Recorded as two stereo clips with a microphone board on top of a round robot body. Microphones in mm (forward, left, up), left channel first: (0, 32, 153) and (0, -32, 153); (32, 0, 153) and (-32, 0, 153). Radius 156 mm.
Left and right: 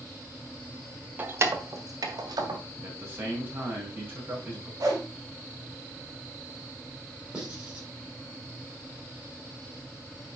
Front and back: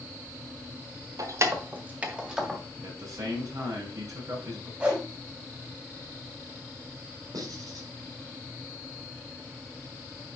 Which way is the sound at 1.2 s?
150° right.